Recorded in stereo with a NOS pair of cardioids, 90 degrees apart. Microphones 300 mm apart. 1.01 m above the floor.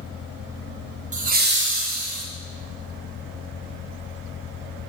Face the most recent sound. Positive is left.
turn(degrees=-60)